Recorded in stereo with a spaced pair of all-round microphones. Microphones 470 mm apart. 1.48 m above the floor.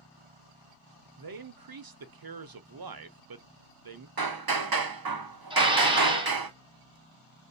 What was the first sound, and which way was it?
A man speaking, 50° right (ahead or behind).